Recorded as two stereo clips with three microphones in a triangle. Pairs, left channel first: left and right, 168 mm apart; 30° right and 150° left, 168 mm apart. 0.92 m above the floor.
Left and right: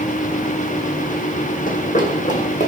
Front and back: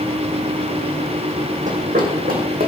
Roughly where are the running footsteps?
Behind left.